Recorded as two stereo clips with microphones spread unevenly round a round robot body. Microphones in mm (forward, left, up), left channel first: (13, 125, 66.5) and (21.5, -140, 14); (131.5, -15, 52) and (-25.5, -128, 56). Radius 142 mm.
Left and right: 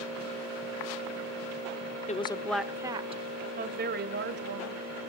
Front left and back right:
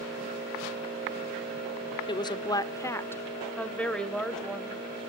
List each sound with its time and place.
2.1 s a woman speaking: 40° left, 0.8 m; by 4.8 s 50° right, 2 m